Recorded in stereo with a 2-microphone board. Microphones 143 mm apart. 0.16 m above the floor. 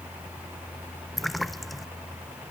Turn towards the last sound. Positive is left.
turn(degrees=0)  # may be behind; listen again after turning